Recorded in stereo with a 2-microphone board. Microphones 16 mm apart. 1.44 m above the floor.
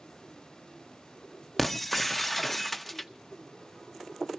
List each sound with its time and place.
1.6 s breaking glass: 5° left (ahead or behind), 0.7 m